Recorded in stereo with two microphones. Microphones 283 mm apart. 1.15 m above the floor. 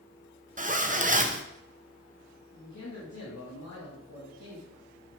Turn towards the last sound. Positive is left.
turn(degrees=75)  # may be behind; listen again after turning